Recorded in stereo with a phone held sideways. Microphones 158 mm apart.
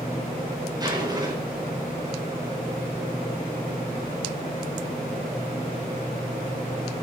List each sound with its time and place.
0.8 s a zipper: 25° right (ahead or behind), 4.5 m